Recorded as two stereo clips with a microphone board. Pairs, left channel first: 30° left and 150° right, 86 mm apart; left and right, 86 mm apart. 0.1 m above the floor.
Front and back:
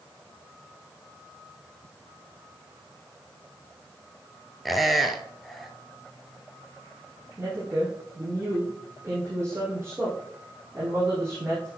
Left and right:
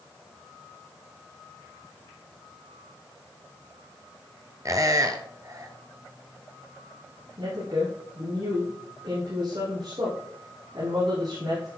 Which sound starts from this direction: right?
A woman speaking, at 7.4 s.